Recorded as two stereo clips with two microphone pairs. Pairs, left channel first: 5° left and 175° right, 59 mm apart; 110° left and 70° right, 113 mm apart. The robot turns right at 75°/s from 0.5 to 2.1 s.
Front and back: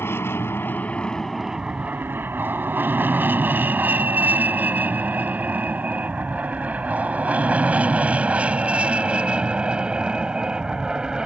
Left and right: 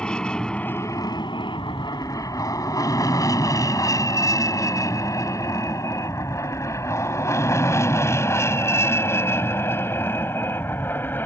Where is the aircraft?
35° left; by 11.3 s 135° left.